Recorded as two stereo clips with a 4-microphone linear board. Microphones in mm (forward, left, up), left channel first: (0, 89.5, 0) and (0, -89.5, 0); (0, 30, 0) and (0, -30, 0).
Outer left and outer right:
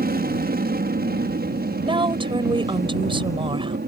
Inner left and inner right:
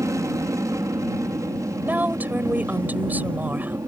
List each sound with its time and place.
0.0 s an aircraft: 60° right (ahead or behind); by 3.9 s 65° right (ahead or behind)
1.8 s a woman speaking: 30° right (ahead or behind)